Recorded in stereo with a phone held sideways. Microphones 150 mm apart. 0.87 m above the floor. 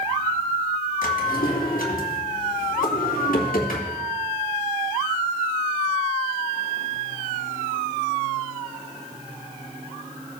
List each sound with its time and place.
1.0 s a drawer: 80° left, 2.5 m